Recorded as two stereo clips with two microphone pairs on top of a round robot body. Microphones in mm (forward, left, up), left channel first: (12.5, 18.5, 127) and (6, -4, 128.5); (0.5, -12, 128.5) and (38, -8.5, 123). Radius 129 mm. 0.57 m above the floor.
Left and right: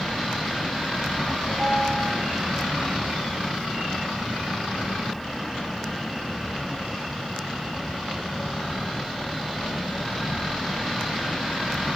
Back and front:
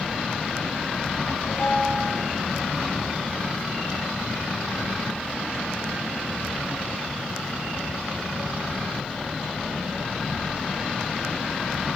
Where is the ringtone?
110° right, 8 m.